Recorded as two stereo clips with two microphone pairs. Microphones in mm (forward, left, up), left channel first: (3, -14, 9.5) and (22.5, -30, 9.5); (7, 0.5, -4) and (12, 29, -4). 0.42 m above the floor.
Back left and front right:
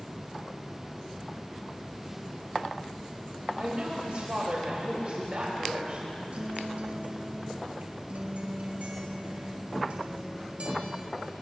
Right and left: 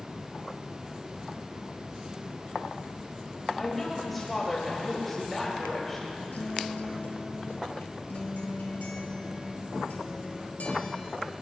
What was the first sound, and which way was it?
A woman speaking, 10° right.